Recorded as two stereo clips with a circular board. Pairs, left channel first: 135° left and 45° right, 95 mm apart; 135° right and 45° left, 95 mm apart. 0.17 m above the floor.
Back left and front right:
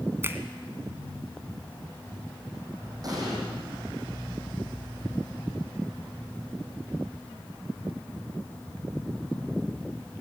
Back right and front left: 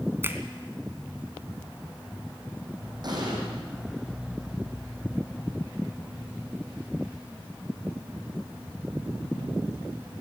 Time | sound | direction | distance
0.2 | a finger snap | straight ahead | 1.7 m
3.0 | an explosion | straight ahead | 7 m